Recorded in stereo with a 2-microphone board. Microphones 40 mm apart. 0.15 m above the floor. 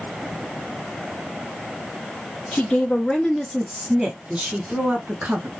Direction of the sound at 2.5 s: 30° left (ahead or behind).